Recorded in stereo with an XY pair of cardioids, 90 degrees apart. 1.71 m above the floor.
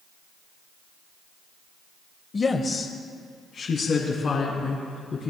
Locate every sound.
2.3 s a woman speaking: 35° left, 1.0 m; by 5.3 s 60° left, 4 m